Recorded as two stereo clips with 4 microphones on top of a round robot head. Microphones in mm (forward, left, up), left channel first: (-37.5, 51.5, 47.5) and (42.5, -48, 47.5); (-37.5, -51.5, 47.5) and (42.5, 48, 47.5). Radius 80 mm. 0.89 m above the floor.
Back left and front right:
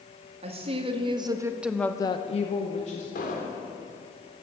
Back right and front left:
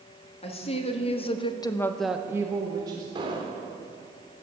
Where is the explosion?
105° left, 2 m.